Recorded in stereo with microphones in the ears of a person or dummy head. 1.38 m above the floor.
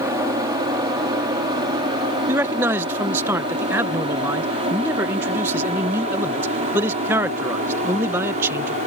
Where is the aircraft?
20° right (ahead or behind); by 8.9 s 45° right (ahead or behind).